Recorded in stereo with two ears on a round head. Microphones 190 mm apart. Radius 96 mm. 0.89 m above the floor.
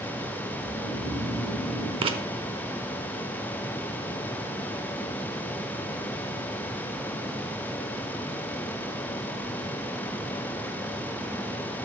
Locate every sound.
0.6 s snoring: 20° right (ahead or behind), 4 m
2.0 s writing: 25° right (ahead or behind), 0.7 m